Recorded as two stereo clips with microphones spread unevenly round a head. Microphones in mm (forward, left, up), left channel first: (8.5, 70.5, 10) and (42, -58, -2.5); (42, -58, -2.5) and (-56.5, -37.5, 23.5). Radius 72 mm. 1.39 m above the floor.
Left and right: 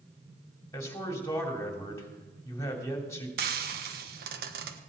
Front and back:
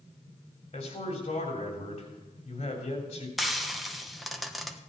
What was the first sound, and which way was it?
A man speaking, 35° left.